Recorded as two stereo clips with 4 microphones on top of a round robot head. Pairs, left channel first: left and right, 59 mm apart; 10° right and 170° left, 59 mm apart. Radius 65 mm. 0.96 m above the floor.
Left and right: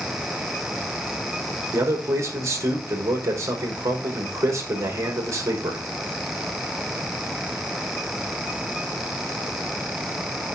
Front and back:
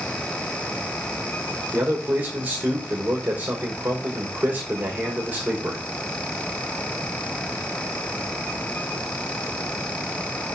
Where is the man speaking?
120° right, 4.5 m.